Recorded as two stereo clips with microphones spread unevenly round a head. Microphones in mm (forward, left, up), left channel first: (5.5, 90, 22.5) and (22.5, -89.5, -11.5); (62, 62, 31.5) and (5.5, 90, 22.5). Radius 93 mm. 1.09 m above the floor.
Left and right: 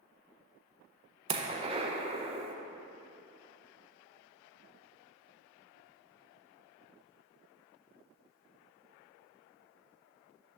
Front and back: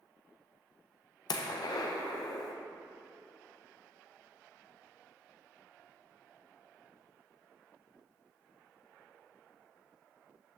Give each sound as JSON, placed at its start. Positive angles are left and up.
{"t": 1.3, "sound": "a gunshot", "azimuth_deg": -30, "distance_m": 0.7}